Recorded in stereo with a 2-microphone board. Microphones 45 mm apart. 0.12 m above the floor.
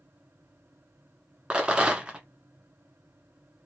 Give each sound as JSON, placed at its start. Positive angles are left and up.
{"t": 1.5, "sound": "a rattle", "side_deg": -20, "distance_m": 1.1}